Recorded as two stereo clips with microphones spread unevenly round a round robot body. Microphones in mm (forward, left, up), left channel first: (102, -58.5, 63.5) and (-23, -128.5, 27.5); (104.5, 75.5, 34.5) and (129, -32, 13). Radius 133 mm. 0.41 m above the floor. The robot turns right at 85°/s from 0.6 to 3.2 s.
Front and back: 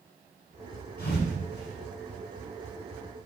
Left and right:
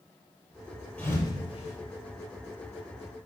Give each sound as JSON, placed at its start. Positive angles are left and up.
{"t": 1.0, "sound": "a thud", "azimuth_deg": 25, "distance_m": 5.5}